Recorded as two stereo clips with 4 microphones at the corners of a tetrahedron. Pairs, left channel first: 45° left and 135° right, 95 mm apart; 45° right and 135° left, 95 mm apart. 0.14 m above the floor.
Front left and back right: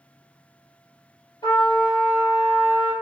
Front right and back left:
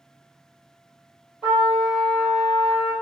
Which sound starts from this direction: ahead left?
A trumpet, at 1.4 s.